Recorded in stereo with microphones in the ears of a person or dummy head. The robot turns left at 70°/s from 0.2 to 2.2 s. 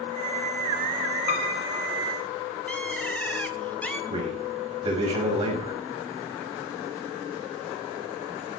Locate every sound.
1.3 s a piano: 130° left, 1.2 m; by 1.9 s 85° left, 1.2 m
2.7 s a bird: 5° left (ahead or behind), 0.8 m
4.1 s a man speaking: 25° right (ahead or behind), 7 m